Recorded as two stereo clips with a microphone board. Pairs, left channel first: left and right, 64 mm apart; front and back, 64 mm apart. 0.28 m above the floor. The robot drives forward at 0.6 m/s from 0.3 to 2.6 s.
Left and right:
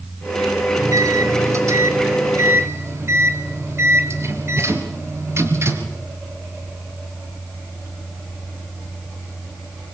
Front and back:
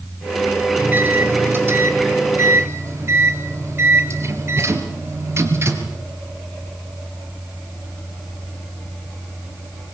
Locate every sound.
0.8 s a microwave: 120° right, 3 m; by 6.0 s 135° right, 3.5 m